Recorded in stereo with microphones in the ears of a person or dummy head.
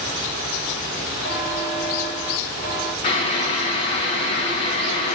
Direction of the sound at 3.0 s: 35° left (ahead or behind).